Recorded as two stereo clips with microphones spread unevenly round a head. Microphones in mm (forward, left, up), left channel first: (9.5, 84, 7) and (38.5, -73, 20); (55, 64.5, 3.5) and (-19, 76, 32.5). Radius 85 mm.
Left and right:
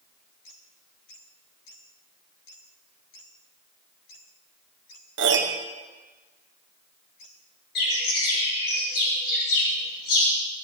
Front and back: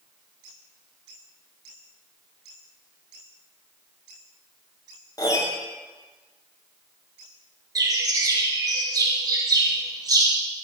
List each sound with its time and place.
5.2 s a piano: 80° right, 1.2 m
7.8 s a bird: 135° left, 9 m